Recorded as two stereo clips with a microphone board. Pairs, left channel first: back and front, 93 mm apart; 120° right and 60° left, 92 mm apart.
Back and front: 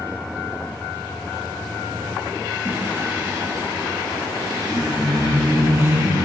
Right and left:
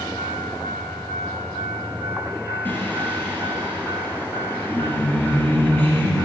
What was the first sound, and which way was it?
Singing, 55° right.